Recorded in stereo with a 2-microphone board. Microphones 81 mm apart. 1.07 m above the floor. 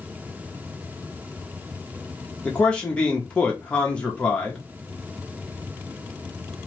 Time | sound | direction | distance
2.5 | a man speaking | 15° left (ahead or behind) | 0.9 m